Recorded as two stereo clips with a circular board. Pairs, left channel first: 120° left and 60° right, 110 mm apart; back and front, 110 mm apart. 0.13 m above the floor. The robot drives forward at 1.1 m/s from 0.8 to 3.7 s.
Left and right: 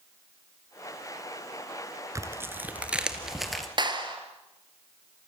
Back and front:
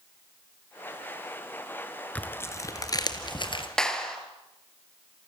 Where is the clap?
100° right, 2.5 m.